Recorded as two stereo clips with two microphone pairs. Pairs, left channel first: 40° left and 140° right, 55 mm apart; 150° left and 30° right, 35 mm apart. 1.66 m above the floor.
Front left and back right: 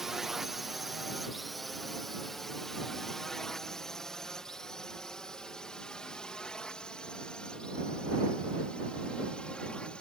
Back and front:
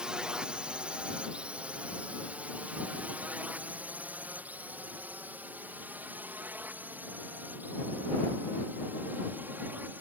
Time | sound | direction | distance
0.0 | a drone | 60° right | ?